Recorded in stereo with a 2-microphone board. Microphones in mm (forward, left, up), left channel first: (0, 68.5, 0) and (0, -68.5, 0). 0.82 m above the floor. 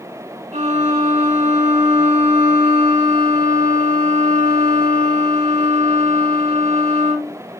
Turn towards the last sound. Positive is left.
turn(degrees=-55)  # may be behind; listen again after turning